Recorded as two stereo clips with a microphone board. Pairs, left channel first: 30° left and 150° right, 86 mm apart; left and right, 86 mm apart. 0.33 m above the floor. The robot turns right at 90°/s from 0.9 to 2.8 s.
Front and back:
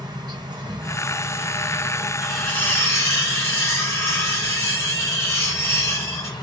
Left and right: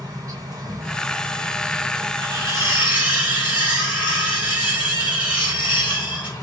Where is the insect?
130° right, 1.6 m; by 6.4 s 40° left, 1.6 m.